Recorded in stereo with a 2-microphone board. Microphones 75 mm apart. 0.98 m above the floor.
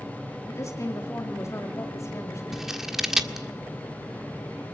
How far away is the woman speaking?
About 2 m.